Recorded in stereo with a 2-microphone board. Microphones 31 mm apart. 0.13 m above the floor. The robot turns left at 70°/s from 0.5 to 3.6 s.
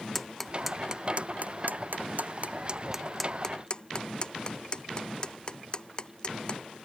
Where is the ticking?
5° left (ahead or behind); by 6.6 s 30° left (ahead or behind).